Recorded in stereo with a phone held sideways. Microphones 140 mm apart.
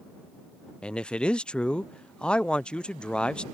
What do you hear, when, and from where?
0.8 s a man speaking: 5° left (ahead or behind)